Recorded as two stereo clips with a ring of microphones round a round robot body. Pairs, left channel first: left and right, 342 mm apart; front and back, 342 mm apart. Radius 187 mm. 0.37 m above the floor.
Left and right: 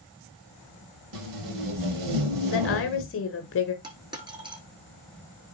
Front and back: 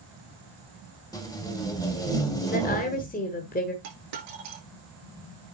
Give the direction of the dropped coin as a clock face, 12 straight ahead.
6 o'clock.